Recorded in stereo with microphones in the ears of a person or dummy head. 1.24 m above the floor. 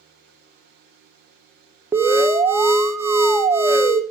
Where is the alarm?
15° right (ahead or behind), 0.7 m.